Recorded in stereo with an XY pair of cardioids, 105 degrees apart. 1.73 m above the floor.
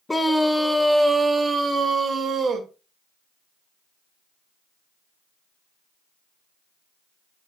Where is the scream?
15° left, 1.1 m; by 2.7 s 45° right, 1.8 m.